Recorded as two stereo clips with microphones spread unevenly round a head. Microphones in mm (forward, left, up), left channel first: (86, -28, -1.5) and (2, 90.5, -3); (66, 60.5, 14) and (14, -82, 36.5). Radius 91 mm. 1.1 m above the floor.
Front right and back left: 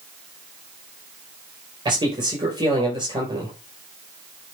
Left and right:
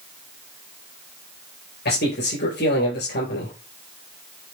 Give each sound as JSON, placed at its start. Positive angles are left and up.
{"t": 1.9, "sound": "a man speaking", "azimuth_deg": 65, "distance_m": 5.5}